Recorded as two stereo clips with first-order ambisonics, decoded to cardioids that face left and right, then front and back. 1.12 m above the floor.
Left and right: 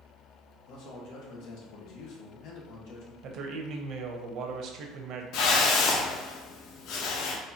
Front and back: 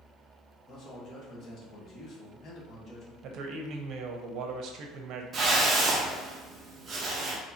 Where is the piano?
No piano in this recording.